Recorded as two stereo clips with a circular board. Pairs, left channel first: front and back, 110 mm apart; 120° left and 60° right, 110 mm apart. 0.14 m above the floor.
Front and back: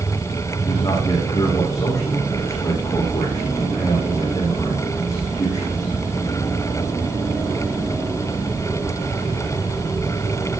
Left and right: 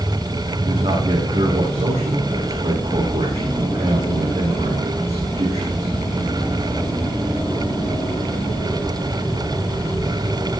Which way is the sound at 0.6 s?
60° right.